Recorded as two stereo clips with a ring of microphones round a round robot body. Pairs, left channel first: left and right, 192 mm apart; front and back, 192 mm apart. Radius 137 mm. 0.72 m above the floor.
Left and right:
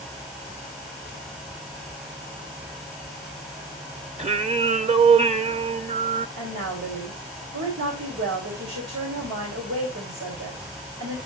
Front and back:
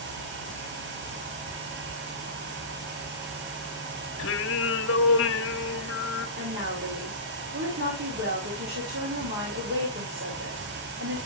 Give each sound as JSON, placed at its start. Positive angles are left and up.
{"t": 4.2, "sound": "singing", "azimuth_deg": -35, "distance_m": 1.2}
{"t": 6.4, "sound": "a woman speaking", "azimuth_deg": -135, "distance_m": 3.0}